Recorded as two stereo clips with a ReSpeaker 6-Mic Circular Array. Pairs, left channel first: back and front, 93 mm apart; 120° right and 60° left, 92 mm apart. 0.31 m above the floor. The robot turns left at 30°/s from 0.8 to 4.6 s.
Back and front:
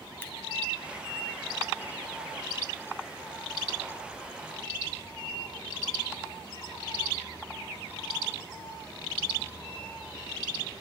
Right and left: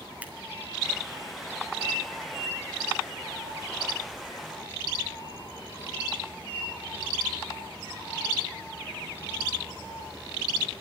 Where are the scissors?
125° left, 1.7 m.